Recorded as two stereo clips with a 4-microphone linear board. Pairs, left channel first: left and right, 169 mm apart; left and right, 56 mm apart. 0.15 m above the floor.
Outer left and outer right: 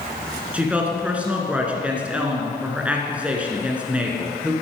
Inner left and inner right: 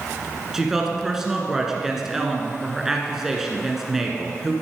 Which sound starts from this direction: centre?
A woman speaking, at 0.5 s.